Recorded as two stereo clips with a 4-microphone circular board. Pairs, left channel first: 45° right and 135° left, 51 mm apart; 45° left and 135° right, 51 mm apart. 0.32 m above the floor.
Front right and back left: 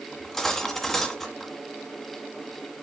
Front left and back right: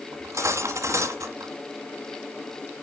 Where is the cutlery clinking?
130° right, 1.5 m.